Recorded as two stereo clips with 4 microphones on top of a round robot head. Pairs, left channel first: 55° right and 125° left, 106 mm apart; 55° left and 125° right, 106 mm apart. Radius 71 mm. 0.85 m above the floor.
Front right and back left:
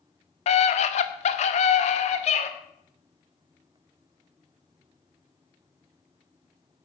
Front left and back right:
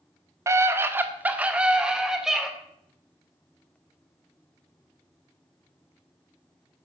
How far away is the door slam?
I don't hear a door slam.